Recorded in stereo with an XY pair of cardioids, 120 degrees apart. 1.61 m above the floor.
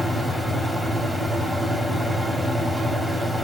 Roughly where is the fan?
Ahead.